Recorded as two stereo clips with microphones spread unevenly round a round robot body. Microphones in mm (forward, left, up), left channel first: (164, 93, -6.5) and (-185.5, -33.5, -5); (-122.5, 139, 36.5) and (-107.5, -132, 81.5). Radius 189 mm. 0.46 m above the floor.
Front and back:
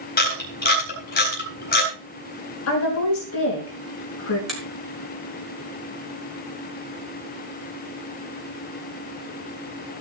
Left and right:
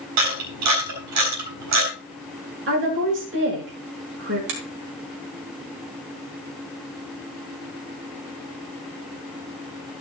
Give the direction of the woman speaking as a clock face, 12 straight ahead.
1 o'clock.